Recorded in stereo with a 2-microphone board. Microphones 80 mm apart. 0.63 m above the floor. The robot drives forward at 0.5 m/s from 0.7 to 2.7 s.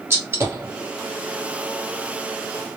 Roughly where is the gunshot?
Right.